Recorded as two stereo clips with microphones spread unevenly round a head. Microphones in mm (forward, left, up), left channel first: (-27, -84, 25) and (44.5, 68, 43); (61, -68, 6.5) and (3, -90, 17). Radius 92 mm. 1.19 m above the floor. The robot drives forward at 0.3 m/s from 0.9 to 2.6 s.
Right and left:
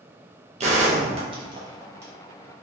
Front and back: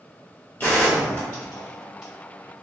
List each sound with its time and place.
0.6 s a gunshot: 85° left, 0.5 m; by 2.1 s 135° left, 0.6 m